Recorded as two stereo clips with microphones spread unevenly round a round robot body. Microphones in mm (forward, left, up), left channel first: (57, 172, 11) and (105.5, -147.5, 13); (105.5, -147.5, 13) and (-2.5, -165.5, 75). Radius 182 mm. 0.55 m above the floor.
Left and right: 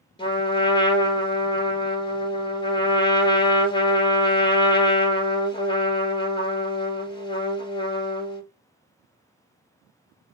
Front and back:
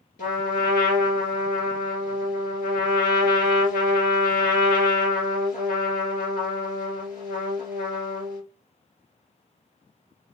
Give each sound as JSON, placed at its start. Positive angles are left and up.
{"t": 0.2, "sound": "a trumpet", "azimuth_deg": 25, "distance_m": 1.4}